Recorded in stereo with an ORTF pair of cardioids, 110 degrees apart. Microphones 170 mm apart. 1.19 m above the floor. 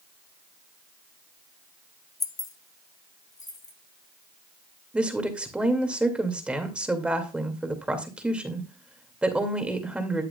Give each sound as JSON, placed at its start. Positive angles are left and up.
{"t": 2.2, "sound": "keys jangling", "azimuth_deg": 20, "distance_m": 0.7}
{"t": 4.9, "sound": "a woman speaking", "azimuth_deg": -5, "distance_m": 2.0}